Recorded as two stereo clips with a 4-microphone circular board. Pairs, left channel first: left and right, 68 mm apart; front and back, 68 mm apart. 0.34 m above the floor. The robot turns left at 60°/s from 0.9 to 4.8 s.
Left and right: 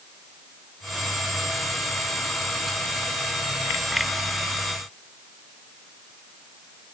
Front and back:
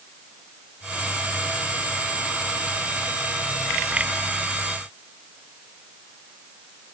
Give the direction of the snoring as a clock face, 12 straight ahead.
No snoring in this recording.